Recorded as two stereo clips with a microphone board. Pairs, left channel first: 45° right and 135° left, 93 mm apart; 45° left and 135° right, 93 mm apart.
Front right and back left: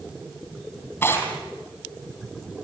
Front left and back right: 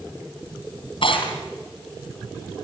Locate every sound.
1.0 s tearing paper: 25° left, 4 m